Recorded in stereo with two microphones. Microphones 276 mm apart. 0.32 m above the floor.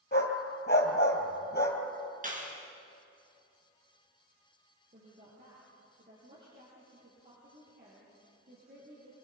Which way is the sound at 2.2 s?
30° right (ahead or behind).